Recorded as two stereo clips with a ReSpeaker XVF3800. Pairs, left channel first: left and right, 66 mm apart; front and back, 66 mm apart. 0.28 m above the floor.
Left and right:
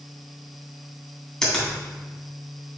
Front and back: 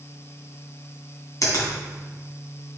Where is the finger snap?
10° left, 2.5 m.